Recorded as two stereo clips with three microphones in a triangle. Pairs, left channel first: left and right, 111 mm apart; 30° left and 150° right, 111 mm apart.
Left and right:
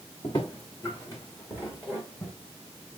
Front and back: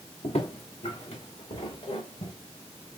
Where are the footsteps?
40° left, 3 m; by 2.3 s 15° left, 3.5 m.